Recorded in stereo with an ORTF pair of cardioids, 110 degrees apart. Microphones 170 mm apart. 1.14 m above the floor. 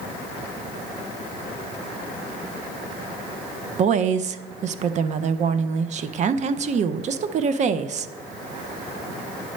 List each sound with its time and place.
3.8 s a woman speaking: 40° right, 0.5 m